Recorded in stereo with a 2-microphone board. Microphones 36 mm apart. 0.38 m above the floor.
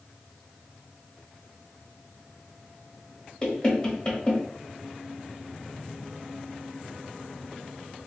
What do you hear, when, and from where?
3.4 s knocking: 25° left (ahead or behind), 1.1 m